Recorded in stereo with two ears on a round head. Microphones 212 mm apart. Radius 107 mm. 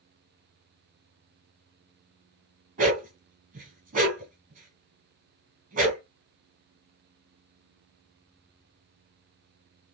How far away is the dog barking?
About 1.5 m.